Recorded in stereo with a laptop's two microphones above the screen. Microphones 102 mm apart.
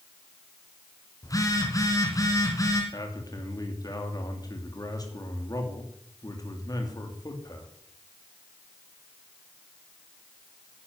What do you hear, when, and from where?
1.2 s a phone buzzing: 30° left (ahead or behind), 2.5 m
2.9 s a man speaking: 35° left (ahead or behind), 2.5 m